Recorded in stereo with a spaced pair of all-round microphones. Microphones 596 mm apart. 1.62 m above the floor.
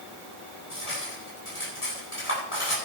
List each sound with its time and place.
0.7 s cutlery clinking: 55° left (ahead or behind), 10 m